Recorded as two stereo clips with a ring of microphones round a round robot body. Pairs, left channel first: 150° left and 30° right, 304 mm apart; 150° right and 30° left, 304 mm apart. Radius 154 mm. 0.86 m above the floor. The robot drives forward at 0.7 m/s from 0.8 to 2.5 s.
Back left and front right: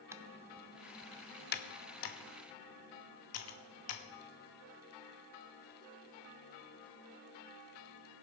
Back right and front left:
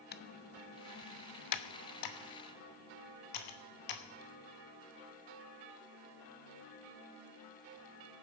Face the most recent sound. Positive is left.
turn(degrees=-165)